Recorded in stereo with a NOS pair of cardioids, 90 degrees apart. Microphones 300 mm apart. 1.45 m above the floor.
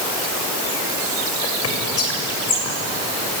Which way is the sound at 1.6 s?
50° left.